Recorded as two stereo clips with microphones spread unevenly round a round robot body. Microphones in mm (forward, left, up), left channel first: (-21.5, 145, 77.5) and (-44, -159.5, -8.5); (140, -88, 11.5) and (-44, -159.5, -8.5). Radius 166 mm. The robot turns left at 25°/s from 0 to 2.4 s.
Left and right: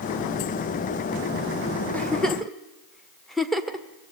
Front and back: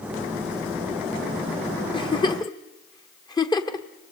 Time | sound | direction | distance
1.9 | a giggle | 25° right | 1.3 m